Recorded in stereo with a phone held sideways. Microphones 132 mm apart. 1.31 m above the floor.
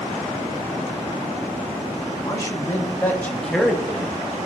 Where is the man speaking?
25° left (ahead or behind), 2.5 m; by 4.2 s 15° right (ahead or behind), 1.3 m.